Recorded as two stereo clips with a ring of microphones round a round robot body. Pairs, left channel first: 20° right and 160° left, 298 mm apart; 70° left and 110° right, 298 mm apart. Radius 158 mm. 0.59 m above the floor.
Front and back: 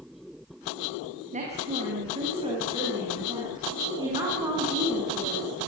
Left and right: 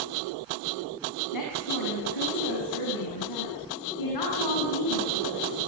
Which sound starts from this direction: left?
A woman speaking, at 1.3 s.